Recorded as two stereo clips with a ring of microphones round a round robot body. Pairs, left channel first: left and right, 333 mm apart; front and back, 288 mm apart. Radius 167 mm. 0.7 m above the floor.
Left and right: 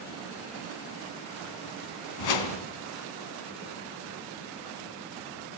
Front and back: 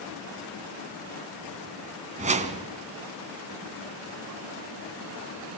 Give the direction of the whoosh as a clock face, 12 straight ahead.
8 o'clock.